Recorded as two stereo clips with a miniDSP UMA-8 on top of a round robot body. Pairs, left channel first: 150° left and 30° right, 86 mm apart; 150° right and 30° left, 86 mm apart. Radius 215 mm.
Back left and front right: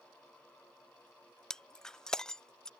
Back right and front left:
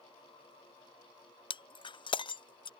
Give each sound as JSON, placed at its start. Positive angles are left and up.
{"t": 1.5, "sound": "breaking glass", "azimuth_deg": -125}